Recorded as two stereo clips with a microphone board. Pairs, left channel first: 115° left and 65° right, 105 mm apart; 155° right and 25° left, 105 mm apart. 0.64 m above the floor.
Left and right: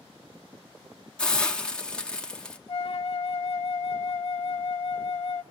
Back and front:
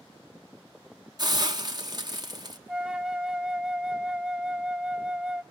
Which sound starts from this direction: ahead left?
A hiss, at 1.2 s.